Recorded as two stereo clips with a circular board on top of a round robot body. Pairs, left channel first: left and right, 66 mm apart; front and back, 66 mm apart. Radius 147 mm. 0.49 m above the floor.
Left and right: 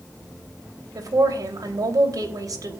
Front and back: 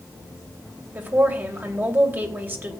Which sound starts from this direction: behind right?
A woman speaking, at 0.9 s.